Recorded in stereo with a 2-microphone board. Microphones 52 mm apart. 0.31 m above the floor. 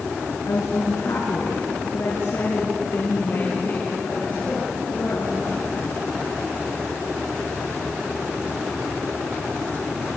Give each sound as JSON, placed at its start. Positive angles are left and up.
{"t": 0.5, "sound": "a woman speaking", "side_deg": 70, "distance_m": 4.0}